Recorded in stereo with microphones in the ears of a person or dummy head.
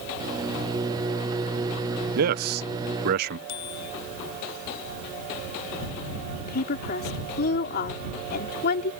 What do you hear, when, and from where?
0.2 s a microwave: 25° right (ahead or behind)
2.1 s a man speaking: 50° right (ahead or behind)
3.5 s a bicycle bell: 75° left (ahead or behind)
6.4 s a woman speaking: 55° left (ahead or behind)